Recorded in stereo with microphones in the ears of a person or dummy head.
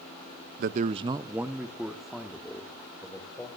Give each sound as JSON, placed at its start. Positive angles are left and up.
{"t": 0.6, "sound": "a man speaking", "side_deg": -50, "distance_m": 0.5}